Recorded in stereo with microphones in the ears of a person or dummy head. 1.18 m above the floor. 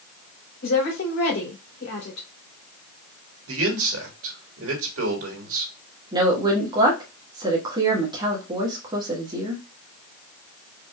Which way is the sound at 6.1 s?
25° right (ahead or behind).